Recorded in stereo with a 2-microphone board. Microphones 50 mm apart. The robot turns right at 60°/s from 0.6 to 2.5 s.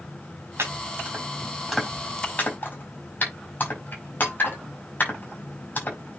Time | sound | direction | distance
0.6 | chopping | 70° right (ahead or behind) | 5 m